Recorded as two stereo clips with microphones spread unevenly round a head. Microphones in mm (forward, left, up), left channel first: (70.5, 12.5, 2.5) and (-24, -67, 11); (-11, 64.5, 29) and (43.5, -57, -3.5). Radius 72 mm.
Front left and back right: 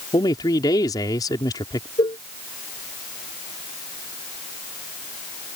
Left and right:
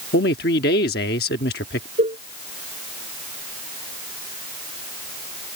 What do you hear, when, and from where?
0.1 s a man speaking: 105° left
2.0 s a cowbell: 15° right